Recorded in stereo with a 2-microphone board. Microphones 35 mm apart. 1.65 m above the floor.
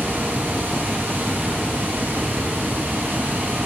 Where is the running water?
85° right, 9 m.